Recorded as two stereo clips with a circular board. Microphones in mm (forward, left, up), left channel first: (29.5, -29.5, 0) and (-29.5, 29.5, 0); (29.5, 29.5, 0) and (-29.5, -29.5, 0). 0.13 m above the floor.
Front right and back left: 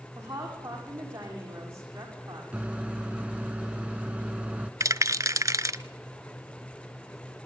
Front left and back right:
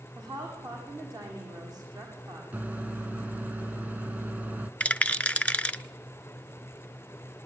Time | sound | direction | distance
0.1 | a woman speaking | 170° right | 8.5 m
2.5 | a microwave | 170° right | 0.9 m
4.8 | a rattle | 115° left | 0.7 m